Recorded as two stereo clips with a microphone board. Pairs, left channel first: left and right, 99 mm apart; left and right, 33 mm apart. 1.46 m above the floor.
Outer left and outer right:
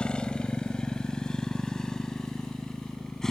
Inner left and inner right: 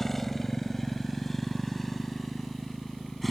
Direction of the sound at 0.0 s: 10° left (ahead or behind).